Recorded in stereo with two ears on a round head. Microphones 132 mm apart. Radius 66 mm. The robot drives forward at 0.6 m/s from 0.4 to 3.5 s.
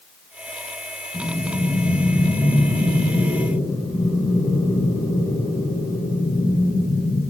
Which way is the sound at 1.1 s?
5° left (ahead or behind).